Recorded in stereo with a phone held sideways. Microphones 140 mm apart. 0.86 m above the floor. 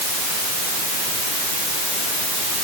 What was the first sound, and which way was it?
Only background noise.